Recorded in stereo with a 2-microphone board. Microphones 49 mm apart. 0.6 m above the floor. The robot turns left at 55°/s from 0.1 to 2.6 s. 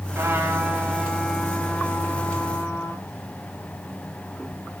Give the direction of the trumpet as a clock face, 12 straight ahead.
4 o'clock.